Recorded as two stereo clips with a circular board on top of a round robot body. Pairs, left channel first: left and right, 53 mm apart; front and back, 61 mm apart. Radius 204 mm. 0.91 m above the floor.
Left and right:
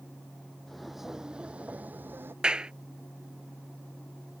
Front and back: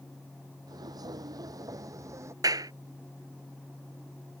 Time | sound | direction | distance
0.7 | footsteps | 175° left | ?
2.4 | a clap | 165° right | ?